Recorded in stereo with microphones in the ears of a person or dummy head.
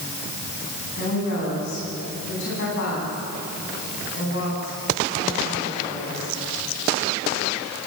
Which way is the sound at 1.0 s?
60° left (ahead or behind).